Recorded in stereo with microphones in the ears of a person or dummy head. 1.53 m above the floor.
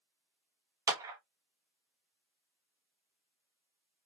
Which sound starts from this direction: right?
A clap, at 0.9 s.